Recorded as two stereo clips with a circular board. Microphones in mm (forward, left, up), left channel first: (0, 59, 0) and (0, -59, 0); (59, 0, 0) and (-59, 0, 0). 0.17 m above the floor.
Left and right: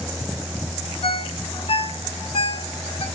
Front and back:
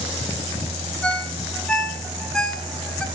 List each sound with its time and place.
1.0 s a ringtone: 80° left, 1.0 m